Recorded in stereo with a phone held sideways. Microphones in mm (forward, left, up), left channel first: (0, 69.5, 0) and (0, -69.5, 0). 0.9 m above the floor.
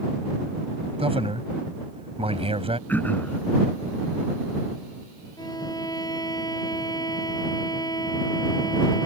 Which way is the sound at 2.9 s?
10° left (ahead or behind).